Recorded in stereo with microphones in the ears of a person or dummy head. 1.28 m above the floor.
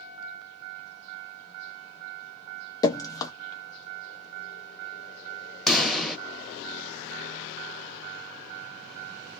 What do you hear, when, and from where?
2.8 s dripping: 20° left (ahead or behind), 0.5 m
5.7 s a pop: centre (ahead or behind), 0.7 m